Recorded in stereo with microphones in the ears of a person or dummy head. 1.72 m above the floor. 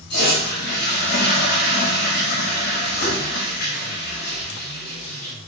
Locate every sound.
0.1 s a toilet flushing: 60° left (ahead or behind), 5 m